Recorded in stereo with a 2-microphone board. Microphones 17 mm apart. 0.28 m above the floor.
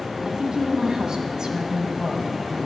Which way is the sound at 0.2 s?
55° right (ahead or behind).